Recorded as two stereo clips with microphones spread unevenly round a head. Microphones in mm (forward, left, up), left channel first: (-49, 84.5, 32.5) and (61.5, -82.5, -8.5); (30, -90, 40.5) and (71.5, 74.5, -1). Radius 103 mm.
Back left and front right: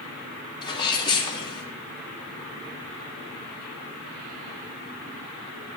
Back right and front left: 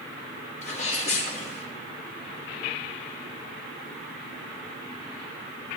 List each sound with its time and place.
0.6 s a sneeze: 165° right, 3 m